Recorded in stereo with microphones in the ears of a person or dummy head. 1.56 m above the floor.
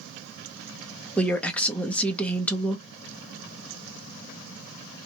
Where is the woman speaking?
5° left (ahead or behind), 0.7 m.